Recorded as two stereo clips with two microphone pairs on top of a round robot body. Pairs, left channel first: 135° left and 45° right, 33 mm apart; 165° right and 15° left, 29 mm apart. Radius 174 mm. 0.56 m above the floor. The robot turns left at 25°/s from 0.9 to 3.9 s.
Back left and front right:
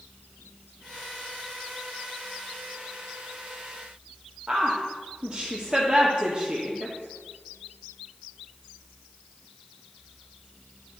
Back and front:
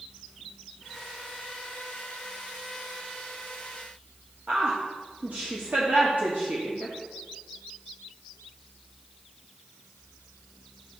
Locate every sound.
4.5 s a woman speaking: 10° left, 1.5 m